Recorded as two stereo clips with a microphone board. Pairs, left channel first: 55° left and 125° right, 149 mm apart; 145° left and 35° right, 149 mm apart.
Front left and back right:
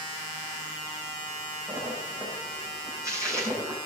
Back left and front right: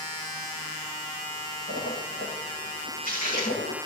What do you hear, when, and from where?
1.7 s a splash: 165° left, 9.5 m